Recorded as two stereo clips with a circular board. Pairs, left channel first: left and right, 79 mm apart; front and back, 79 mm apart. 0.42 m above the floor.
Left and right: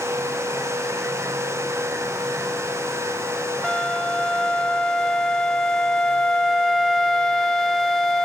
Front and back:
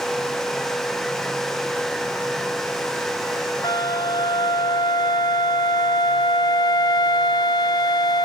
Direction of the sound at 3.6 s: 5° left.